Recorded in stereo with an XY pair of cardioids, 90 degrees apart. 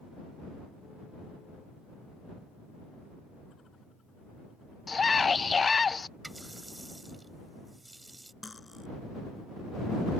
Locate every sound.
4.9 s a scream: 35° left
6.2 s a running tap: 20° right
8.4 s cutlery clinking: 20° left